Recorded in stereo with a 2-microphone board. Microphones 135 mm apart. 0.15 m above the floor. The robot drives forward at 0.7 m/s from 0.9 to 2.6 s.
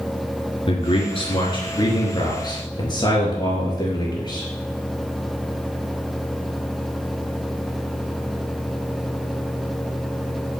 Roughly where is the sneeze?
I don't hear a sneeze.